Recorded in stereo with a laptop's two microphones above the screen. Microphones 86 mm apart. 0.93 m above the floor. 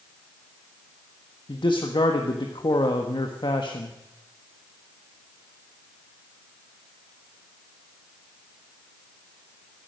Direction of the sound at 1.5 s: 65° left (ahead or behind).